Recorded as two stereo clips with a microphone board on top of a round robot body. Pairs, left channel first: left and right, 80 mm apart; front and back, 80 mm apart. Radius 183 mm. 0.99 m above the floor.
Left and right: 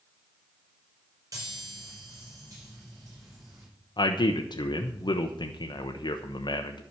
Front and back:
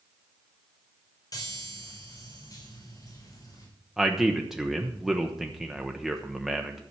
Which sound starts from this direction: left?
A man speaking, at 4.0 s.